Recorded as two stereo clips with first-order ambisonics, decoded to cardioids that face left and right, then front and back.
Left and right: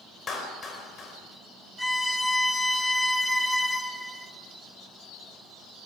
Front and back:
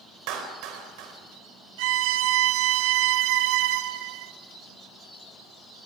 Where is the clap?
155° left, 4 m.